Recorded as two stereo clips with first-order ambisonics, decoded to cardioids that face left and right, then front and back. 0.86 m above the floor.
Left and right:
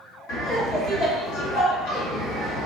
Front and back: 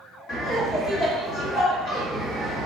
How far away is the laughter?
About 1.7 m.